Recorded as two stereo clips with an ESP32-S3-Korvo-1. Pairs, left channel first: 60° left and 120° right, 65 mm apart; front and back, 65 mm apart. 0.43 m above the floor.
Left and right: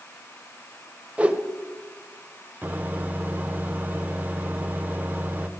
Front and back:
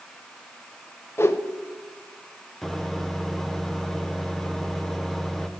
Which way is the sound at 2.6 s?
80° right.